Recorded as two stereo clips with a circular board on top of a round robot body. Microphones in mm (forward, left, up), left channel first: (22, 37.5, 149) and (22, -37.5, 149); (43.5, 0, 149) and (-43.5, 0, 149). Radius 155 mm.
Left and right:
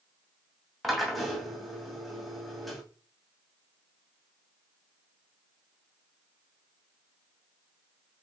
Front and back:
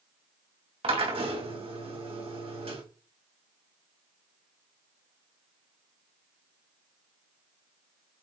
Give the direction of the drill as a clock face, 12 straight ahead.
6 o'clock.